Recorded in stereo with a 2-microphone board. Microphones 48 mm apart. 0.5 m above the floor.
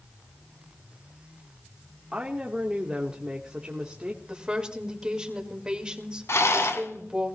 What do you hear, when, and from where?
2.1 s a woman speaking: 20° right (ahead or behind), 1.3 m
4.3 s a woman speaking: 15° right (ahead or behind), 2.0 m
6.3 s a rattle: 75° left (ahead or behind), 1.5 m